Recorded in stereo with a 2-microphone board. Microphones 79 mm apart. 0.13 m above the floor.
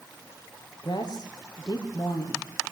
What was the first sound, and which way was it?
A woman speaking, 65° left (ahead or behind).